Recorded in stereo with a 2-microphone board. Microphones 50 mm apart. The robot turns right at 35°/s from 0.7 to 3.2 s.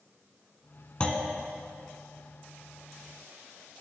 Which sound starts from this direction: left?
A clunk, at 1.0 s.